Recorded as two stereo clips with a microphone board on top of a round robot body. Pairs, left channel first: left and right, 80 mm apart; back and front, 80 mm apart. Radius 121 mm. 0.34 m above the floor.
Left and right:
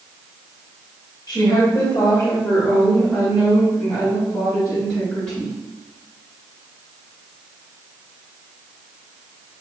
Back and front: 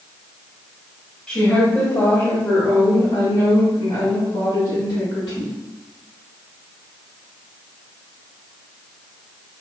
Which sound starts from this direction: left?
A woman speaking, at 1.3 s.